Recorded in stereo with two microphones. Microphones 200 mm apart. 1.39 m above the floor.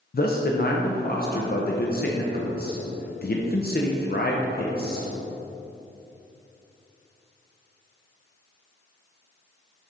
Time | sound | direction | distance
0.1 | a man speaking | 50° left (ahead or behind) | 0.6 m